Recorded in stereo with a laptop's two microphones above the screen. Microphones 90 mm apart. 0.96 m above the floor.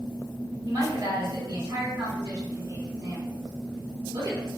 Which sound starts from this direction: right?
A woman speaking, at 0.6 s.